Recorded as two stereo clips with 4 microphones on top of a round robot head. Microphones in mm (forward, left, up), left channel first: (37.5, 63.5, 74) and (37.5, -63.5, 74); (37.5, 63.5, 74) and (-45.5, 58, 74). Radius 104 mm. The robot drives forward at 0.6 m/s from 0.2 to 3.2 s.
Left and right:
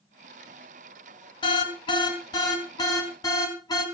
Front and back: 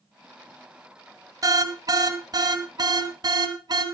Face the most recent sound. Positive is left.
turn(degrees=150)